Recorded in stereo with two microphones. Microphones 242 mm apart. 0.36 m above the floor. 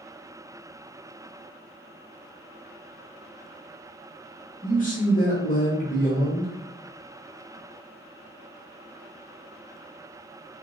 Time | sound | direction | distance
4.6 | a man speaking | 35° left (ahead or behind) | 1.0 m